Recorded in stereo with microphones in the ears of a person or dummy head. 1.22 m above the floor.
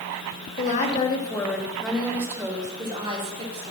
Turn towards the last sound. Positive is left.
turn(degrees=-40)  # may be behind; listen again after turning